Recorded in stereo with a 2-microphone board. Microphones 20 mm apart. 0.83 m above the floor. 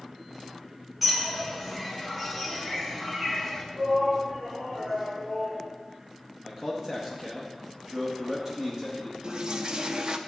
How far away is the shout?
About 2.5 m.